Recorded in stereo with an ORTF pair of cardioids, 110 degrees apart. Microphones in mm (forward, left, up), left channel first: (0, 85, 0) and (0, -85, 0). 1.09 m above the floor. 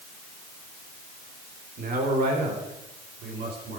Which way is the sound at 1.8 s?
60° right.